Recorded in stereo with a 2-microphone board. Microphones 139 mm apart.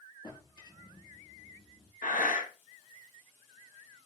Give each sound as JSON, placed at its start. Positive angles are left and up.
{"t": 0.2, "sound": "a drawer", "side_deg": 30, "distance_m": 3.5}
{"t": 2.0, "sound": "breathing", "side_deg": 80, "distance_m": 1.5}